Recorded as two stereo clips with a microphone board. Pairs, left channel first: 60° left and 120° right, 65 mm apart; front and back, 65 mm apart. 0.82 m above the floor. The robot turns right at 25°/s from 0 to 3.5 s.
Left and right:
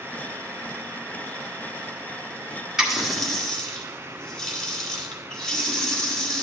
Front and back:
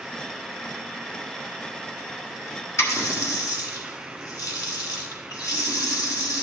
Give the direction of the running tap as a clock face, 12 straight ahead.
1 o'clock.